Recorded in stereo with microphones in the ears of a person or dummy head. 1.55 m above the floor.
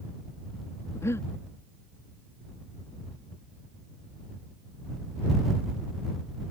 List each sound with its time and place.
0.9 s breathing: 20° left (ahead or behind)